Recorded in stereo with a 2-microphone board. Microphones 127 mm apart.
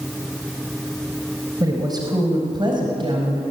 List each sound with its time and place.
1.6 s a woman speaking: 30° right (ahead or behind), 4 m; by 3.4 s 40° right (ahead or behind), 5 m